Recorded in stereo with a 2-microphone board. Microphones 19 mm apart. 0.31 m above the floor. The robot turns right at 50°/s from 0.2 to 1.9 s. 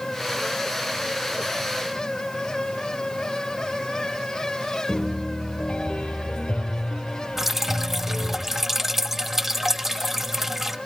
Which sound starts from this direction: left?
A piano, at 4.9 s.